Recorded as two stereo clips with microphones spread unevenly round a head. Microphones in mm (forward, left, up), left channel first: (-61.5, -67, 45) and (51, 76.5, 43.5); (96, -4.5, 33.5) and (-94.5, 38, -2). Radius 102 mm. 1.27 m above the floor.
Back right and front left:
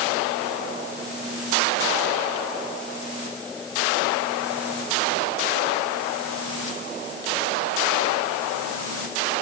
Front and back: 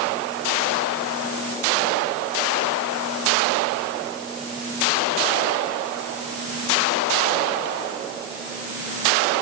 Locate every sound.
Only background noise.